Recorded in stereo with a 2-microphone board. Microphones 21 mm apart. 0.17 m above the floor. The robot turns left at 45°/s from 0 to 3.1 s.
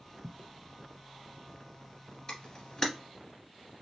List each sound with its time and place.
0.2 s footsteps: 25° right (ahead or behind), 0.7 m; by 0.5 s 15° right (ahead or behind), 0.7 m
2.3 s a camera shutter: 40° left (ahead or behind), 1.7 m; by 2.9 s 20° left (ahead or behind), 1.7 m